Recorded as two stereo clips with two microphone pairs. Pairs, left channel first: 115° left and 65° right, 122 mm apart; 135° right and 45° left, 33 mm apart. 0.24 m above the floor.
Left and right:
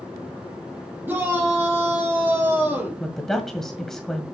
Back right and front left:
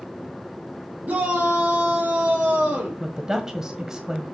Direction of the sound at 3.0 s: 30° left.